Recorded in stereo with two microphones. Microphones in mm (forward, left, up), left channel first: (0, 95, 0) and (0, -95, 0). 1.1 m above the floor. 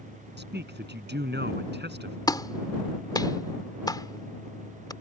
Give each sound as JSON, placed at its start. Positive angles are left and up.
{"t": 0.4, "sound": "a man speaking", "side_deg": -65}
{"t": 2.3, "sound": "a clap", "side_deg": 20}